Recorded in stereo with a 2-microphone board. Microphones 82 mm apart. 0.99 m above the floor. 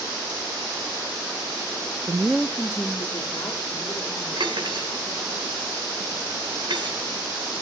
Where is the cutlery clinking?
70° right (ahead or behind), 2.5 m.